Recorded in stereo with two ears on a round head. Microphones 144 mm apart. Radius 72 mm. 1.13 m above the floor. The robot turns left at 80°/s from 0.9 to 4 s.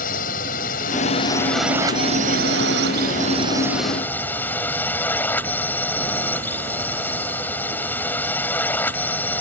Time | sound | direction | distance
0.0 | a drone | 55° left | ?